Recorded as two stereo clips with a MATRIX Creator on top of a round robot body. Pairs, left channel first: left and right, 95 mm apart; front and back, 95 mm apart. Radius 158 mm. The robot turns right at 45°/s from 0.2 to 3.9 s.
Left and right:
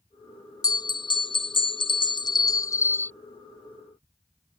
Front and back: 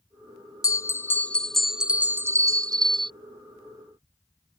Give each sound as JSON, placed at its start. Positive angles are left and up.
{"t": 0.6, "sound": "a bell", "azimuth_deg": 45}